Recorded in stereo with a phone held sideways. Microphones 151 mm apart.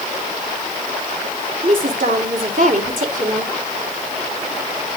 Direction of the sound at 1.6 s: 60° right (ahead or behind).